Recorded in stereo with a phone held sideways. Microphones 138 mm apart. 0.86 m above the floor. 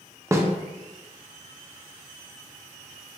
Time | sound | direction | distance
0.3 | a snare drum | 20° right (ahead or behind) | 0.5 m